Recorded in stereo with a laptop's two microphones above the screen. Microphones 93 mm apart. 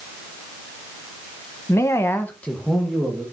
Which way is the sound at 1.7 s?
30° left (ahead or behind).